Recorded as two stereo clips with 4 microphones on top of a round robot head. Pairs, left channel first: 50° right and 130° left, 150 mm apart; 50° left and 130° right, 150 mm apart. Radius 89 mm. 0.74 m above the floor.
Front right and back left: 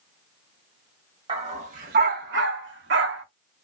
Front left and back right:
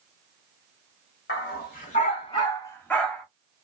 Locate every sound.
1.3 s a dog barking: 75° left, 1.2 m; by 3.2 s 140° left, 1.2 m